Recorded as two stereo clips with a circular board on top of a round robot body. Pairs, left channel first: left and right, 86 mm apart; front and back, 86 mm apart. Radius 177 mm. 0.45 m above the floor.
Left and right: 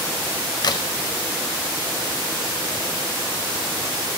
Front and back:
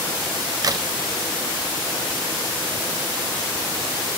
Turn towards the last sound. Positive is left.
turn(degrees=130)